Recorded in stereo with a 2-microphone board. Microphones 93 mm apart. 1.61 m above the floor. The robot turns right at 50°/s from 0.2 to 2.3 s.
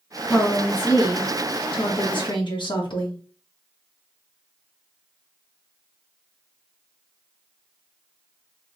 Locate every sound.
0.2 s a woman speaking: 5° left, 1.1 m; by 3.2 s 110° left, 1.1 m